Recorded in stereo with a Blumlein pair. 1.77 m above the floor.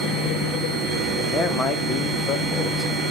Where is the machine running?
20° right, 1.3 m.